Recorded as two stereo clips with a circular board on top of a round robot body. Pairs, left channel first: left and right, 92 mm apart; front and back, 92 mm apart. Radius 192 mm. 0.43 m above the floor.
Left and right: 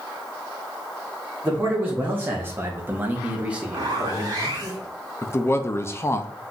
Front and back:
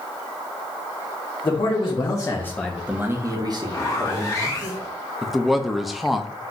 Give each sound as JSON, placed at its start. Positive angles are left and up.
{"t": 1.4, "sound": "a man speaking", "azimuth_deg": -20, "distance_m": 1.7}
{"t": 3.7, "sound": "a zipper", "azimuth_deg": -50, "distance_m": 1.9}
{"t": 5.2, "sound": "a man speaking", "azimuth_deg": 95, "distance_m": 0.7}